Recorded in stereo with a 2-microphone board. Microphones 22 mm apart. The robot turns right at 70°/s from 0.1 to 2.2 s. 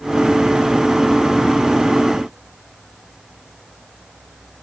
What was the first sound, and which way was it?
Only background noise.